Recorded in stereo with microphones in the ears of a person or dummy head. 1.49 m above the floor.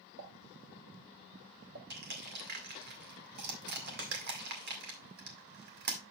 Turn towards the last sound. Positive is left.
turn(degrees=-50)  # may be behind; listen again after turning